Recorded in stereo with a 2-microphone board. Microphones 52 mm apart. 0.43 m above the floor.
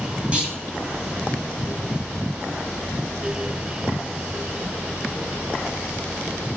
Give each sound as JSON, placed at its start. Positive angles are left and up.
{"t": 0.3, "sound": "a clunk", "side_deg": -25, "distance_m": 2.0}